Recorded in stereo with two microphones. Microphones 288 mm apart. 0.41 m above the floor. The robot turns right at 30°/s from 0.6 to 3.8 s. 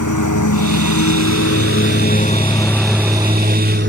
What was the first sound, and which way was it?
A lawn mower, 85° left.